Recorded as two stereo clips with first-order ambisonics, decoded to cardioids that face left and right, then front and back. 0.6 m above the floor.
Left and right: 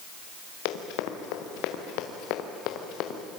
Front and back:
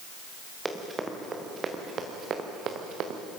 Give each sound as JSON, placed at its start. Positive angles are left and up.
{"t": 0.7, "sound": "running footsteps", "azimuth_deg": 100, "distance_m": 3.5}